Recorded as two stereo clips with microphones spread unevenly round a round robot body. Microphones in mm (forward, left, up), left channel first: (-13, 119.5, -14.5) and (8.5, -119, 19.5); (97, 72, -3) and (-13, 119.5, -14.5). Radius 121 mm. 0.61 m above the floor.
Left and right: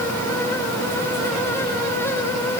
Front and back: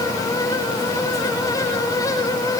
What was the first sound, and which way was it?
Only background noise.